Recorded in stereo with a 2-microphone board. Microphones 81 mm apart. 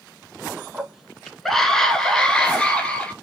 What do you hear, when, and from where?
0.7 s a scream: 5° right (ahead or behind), 1.1 m; by 3.1 s 15° left (ahead or behind), 2.0 m